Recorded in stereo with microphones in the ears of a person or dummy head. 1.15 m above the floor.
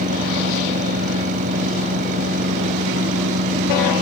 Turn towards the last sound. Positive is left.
turn(degrees=-45)  # may be behind; listen again after turning